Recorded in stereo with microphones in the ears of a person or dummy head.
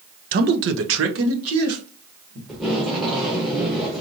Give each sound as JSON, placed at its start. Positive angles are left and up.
{"t": 0.3, "sound": "a man speaking", "side_deg": -40, "distance_m": 0.5}
{"t": 2.5, "sound": "tape being pulled", "side_deg": 0, "distance_m": 1.0}